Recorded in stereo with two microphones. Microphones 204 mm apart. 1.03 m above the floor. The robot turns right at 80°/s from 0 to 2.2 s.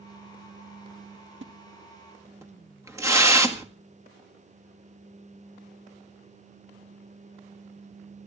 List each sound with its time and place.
1.4 s a splash: 70° right (ahead or behind), 1.9 m; by 3.7 s 15° right (ahead or behind), 1.9 m